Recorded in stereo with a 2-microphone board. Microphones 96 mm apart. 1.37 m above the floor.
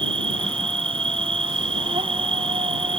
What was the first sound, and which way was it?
An insect, 80° right.